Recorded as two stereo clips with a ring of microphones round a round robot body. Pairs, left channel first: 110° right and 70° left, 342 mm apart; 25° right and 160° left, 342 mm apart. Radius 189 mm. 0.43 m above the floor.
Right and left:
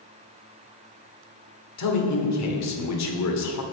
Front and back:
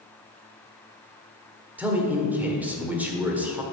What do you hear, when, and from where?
1.8 s a man speaking: 120° right, 1.7 m